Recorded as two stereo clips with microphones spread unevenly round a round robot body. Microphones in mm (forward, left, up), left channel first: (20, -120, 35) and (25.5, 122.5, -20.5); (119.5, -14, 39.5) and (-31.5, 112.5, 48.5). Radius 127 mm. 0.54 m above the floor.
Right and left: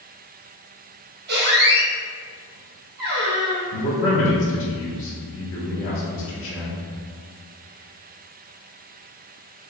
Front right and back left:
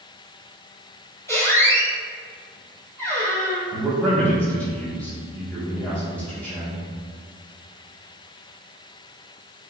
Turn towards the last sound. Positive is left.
turn(degrees=-115)